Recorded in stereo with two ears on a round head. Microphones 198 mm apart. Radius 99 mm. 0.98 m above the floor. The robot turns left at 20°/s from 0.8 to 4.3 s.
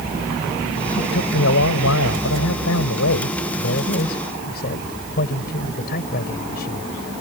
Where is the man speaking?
115° left; by 6.9 s 50° left.